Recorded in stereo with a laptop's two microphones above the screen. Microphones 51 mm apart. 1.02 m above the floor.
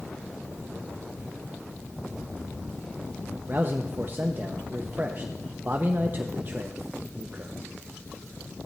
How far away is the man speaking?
About 0.7 m.